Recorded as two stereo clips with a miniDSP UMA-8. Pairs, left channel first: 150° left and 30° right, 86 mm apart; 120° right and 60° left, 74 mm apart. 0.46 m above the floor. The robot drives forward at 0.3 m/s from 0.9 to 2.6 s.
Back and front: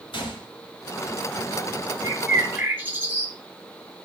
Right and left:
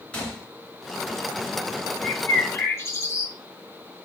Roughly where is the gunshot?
Behind.